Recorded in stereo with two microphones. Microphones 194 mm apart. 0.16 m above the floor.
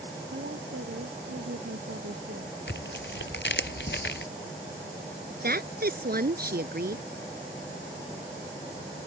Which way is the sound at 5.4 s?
55° right (ahead or behind).